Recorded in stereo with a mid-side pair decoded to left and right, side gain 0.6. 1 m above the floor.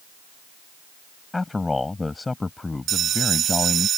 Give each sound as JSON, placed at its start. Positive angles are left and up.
{"t": 1.3, "sound": "a man speaking", "azimuth_deg": 15}
{"t": 2.9, "sound": "a bell", "azimuth_deg": -50}